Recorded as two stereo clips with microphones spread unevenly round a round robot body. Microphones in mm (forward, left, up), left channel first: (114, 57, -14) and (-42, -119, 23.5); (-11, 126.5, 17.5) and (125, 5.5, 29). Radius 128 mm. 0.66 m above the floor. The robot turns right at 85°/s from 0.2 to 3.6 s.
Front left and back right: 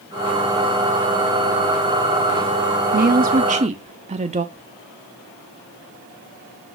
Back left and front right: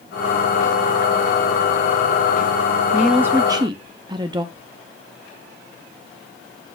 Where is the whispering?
90° left, 4.5 m.